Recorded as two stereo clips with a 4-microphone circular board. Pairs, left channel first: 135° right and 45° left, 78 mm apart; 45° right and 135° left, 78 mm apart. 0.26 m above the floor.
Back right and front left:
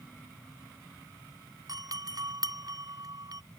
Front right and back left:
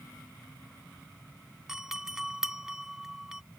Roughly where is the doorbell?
Ahead left.